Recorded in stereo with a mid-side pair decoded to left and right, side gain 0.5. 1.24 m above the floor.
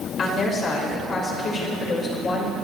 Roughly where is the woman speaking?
Ahead left.